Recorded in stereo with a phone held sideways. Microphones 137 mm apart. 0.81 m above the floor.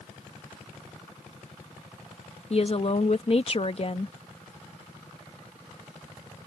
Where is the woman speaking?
45° left (ahead or behind).